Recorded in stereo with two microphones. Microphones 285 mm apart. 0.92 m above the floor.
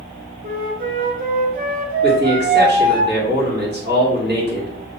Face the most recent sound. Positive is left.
turn(degrees=-35)  # may be behind; listen again after turning